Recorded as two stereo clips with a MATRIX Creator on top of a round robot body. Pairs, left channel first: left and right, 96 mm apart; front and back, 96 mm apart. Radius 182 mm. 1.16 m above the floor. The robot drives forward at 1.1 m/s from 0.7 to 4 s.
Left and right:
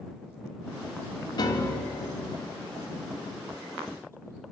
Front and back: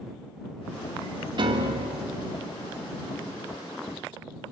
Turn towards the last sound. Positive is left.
turn(degrees=170)